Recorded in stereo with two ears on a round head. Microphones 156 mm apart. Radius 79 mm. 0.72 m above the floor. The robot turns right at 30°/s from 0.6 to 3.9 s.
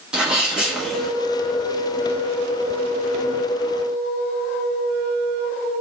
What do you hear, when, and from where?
0.1 s a sneeze: 5° right (ahead or behind), 1.2 m; by 1.1 s 5° left (ahead or behind), 1.2 m